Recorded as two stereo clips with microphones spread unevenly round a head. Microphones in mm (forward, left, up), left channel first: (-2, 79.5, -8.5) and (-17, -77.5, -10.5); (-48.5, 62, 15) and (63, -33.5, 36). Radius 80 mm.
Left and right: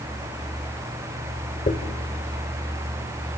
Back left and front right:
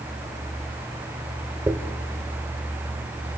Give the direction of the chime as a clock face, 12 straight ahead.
No chime in this recording.